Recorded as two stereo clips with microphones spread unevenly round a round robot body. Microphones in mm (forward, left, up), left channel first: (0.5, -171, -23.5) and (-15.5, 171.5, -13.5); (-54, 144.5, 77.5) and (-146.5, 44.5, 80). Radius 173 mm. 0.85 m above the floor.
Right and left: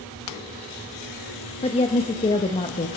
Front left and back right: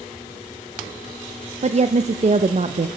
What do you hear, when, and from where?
1.6 s a woman speaking: 155° right, 0.6 m